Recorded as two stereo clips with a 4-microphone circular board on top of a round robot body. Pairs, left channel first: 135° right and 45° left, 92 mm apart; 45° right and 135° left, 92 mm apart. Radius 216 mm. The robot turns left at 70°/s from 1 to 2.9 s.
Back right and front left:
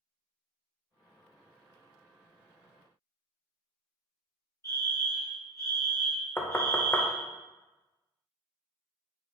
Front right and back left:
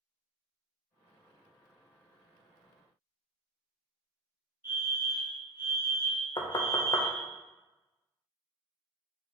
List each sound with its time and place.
4.6 s a fire alarm: 170° right, 2.0 m
6.4 s knocking: 70° right, 0.8 m